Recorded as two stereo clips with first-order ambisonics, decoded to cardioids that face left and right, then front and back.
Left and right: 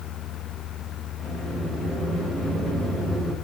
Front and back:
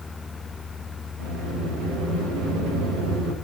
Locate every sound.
1.2 s a sliding door: 175° right, 4 m